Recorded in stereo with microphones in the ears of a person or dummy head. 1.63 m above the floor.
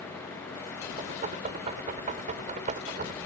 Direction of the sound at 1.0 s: 45° right (ahead or behind).